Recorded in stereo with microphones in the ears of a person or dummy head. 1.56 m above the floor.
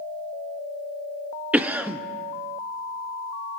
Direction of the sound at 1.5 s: 10° right (ahead or behind).